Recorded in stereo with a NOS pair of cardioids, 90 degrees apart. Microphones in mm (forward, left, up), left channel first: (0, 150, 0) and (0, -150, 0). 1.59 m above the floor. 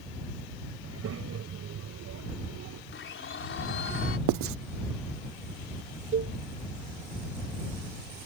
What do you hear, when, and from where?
0.8 s a child speaking: 50° right; by 2.8 s 70° right
2.9 s a blender: 40° left
4.3 s writing: 65° right
6.1 s a cowbell: 40° right